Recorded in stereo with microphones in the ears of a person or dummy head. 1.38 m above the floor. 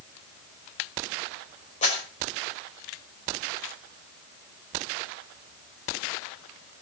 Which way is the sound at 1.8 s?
40° left (ahead or behind).